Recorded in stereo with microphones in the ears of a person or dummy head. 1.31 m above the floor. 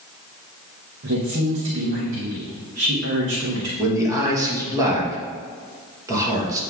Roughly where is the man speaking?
Centre.